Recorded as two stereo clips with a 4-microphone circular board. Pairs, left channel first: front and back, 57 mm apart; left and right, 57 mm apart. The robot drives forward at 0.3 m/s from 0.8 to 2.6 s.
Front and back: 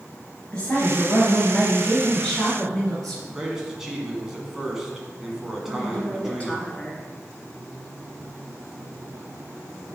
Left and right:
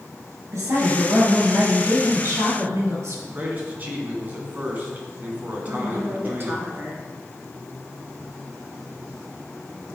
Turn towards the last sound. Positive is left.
turn(degrees=-60)